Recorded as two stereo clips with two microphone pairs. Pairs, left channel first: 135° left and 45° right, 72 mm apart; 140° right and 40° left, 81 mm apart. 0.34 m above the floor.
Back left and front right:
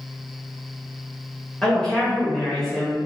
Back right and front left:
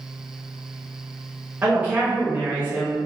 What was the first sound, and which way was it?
A woman speaking, 70° left.